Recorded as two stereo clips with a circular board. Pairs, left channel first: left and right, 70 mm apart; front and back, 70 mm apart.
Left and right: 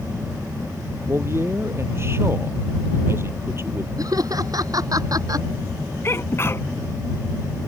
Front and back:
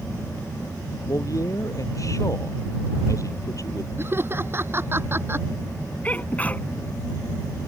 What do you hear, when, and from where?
1.1 s a man speaking: 40° right
4.0 s laughter: 125° right
6.0 s a sneeze: 60° left